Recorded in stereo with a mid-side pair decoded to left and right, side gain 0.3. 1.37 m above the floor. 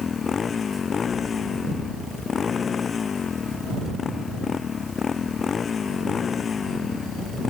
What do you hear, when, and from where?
0.0 s a motorcycle: 60° left